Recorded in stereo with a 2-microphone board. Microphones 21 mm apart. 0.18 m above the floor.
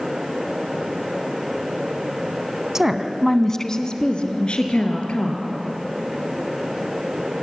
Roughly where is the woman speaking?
Right.